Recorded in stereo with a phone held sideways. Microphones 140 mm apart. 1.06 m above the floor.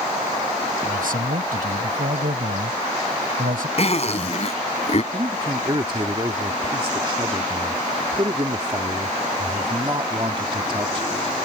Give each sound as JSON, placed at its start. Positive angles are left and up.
{"t": 0.8, "sound": "a man speaking", "side_deg": -85}
{"t": 3.8, "sound": "a zipper", "side_deg": 50}
{"t": 5.1, "sound": "a man speaking", "side_deg": -35}